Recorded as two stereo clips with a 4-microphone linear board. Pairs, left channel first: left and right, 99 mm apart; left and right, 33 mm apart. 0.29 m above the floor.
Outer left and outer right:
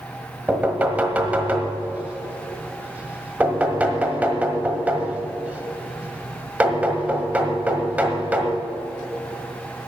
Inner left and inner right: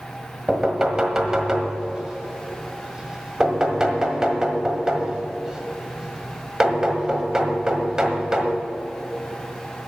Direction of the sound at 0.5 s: 15° right (ahead or behind).